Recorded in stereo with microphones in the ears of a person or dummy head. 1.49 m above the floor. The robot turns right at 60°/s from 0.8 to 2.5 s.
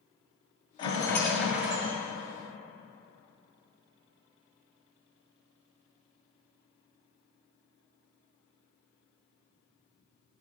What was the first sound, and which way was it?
A rattle, 150° left.